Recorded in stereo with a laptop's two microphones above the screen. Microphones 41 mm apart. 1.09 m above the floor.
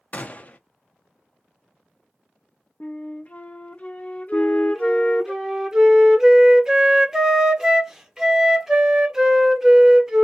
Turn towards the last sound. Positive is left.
turn(degrees=-10)  # may be behind; listen again after turning